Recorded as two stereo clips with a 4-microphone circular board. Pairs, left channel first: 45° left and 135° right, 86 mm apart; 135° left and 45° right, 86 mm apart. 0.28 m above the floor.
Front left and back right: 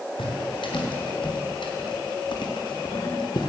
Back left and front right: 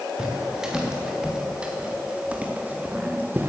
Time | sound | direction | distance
0.2 | footsteps | 35° left | 4 m